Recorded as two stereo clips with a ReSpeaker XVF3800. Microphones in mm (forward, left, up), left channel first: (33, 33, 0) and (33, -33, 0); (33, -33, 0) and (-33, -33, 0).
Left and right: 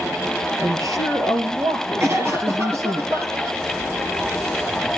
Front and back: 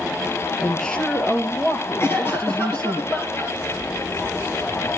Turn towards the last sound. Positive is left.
turn(degrees=-45)